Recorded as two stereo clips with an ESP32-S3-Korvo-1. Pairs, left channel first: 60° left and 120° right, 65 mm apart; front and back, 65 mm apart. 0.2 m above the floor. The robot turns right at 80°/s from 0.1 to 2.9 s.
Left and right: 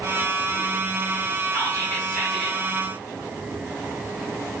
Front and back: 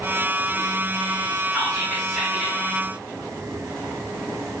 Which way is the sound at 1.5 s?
50° left.